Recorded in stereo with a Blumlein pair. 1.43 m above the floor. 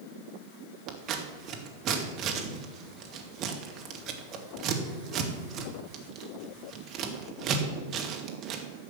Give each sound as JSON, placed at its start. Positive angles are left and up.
{"t": 0.9, "sound": "scissors", "azimuth_deg": -30, "distance_m": 1.9}